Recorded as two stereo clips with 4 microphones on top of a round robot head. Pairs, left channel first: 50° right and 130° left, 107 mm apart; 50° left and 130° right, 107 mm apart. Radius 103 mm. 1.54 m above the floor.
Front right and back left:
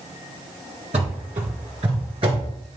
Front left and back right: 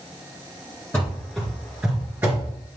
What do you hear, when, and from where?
0.9 s running footsteps: 120° left, 1.7 m; by 2.5 s 170° left, 1.8 m